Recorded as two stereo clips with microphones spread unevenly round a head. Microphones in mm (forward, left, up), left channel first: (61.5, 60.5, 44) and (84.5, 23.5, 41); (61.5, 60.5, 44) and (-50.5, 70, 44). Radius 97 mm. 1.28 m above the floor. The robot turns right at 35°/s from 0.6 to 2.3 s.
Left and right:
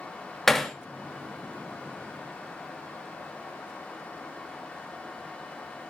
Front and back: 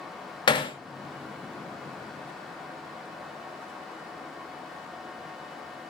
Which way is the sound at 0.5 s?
40° left.